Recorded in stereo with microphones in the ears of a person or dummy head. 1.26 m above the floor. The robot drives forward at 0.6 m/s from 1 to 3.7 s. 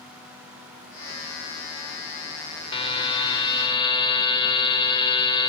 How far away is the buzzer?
About 3 m.